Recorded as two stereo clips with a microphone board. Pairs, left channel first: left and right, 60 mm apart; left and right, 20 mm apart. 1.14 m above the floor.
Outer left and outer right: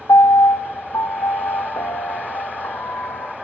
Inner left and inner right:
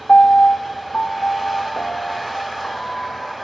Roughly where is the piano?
Left.